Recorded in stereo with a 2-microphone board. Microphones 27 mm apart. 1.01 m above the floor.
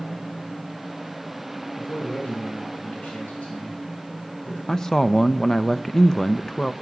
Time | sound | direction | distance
1.8 | a man speaking | 85° left | 7 m
4.7 | a man speaking | 15° left (ahead or behind) | 0.7 m